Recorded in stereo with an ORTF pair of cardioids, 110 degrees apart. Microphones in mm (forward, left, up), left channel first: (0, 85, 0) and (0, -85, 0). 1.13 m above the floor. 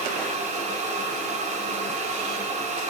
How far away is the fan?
About 2.5 m.